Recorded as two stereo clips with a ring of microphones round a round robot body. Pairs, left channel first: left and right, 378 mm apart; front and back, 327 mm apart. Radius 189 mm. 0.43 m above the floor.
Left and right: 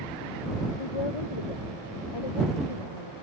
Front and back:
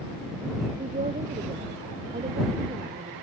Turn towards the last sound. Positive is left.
turn(degrees=110)